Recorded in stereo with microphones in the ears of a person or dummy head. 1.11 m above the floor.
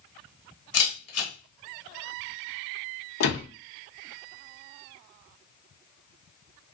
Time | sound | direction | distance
0.7 | a camera shutter | 75° left (ahead or behind) | 1.6 m
3.2 | a door slam | 90° left | 0.9 m